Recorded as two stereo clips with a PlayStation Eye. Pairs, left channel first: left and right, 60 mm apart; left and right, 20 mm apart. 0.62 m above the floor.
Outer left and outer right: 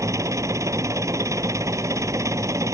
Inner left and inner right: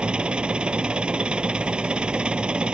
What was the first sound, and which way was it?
An engine running, 60° right (ahead or behind).